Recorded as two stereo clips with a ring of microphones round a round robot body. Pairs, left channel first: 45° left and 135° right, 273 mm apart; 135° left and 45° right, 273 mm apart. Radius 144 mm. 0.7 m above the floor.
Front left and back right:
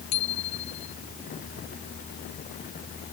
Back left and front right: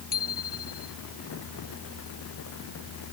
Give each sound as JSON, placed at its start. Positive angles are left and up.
{"t": 0.1, "sound": "a bicycle bell", "azimuth_deg": 75}